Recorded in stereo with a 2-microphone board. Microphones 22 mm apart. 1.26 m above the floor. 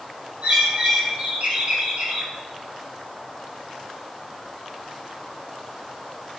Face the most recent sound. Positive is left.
turn(degrees=-85)